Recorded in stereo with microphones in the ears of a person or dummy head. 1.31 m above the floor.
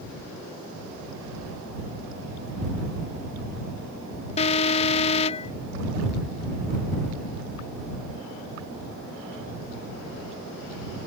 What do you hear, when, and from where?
4.4 s an alarm: 35° left (ahead or behind)